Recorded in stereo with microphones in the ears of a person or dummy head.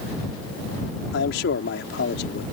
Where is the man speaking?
60° left (ahead or behind).